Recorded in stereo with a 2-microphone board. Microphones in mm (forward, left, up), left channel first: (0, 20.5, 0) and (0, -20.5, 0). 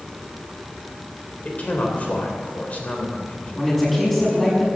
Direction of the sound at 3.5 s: 5° left (ahead or behind).